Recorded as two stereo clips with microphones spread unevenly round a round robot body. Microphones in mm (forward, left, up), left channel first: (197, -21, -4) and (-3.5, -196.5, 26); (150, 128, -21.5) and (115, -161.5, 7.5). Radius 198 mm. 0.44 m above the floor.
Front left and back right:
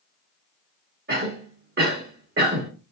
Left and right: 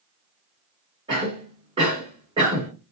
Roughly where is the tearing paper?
I don't hear tearing paper.